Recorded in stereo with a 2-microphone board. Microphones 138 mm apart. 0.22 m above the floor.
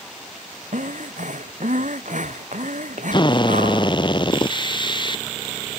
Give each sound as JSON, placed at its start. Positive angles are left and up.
{"t": 0.7, "sound": "breathing", "side_deg": -65}
{"t": 3.1, "sound": "a drill", "side_deg": 35}